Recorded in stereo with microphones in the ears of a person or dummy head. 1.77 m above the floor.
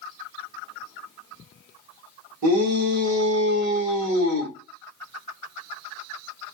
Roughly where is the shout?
Right.